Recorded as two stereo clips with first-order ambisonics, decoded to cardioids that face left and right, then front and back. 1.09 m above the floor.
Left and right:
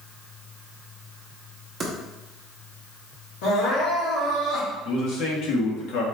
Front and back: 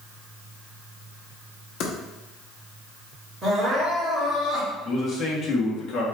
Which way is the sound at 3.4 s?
100° left.